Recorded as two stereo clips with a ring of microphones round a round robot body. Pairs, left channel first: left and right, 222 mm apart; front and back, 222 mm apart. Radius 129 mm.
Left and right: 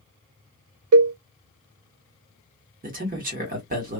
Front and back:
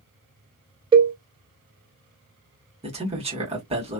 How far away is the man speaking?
About 1.6 m.